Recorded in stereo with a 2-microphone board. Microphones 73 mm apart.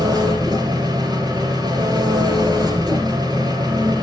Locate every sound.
0.0 s an engine running: 70° right (ahead or behind), 1.8 m